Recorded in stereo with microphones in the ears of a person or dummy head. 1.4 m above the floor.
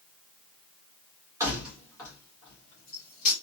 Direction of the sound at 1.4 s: 15° right (ahead or behind).